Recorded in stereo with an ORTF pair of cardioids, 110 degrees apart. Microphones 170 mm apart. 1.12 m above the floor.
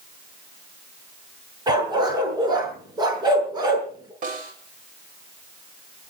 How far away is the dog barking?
About 5.5 m.